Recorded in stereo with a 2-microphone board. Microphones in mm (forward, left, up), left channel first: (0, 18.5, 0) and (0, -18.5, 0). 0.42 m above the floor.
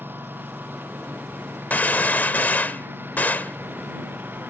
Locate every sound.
0.0 s a lawn mower: 65° right (ahead or behind)
1.7 s a gunshot: 55° left (ahead or behind)